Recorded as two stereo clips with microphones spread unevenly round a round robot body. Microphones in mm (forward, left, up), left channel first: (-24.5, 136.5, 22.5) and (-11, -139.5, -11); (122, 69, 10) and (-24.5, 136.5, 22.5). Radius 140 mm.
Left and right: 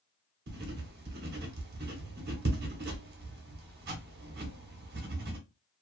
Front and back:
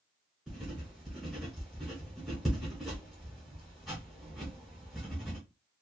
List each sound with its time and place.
0.5 s writing: 110° right, 0.8 m